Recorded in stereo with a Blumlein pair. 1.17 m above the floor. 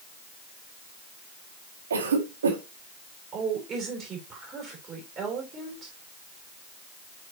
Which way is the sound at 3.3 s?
25° right.